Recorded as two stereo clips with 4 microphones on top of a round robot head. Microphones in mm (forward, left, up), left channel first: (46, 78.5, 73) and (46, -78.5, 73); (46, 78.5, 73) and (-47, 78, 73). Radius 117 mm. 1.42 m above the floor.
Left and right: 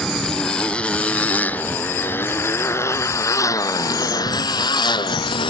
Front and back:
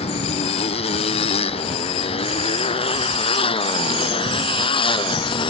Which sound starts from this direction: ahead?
A motorcycle, at 0.0 s.